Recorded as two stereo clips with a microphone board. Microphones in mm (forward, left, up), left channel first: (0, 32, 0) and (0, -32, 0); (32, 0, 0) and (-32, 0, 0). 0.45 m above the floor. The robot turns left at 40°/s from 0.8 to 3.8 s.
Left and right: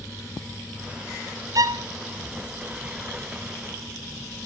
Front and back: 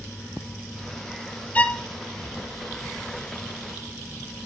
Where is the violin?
65° right, 0.6 m; by 1.8 s 75° right, 0.6 m.